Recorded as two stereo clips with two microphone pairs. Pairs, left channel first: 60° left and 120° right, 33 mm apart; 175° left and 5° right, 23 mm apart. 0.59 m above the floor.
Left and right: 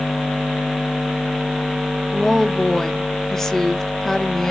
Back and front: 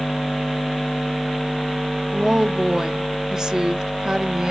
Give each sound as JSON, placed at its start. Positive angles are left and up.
{"t": 2.1, "sound": "a woman speaking", "azimuth_deg": 0, "distance_m": 0.7}